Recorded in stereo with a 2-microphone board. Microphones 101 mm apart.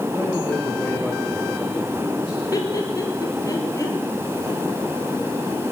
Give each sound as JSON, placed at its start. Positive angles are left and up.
{"t": 0.1, "sound": "a man speaking", "side_deg": 30, "distance_m": 6.0}
{"t": 2.5, "sound": "laughter", "side_deg": 35, "distance_m": 4.0}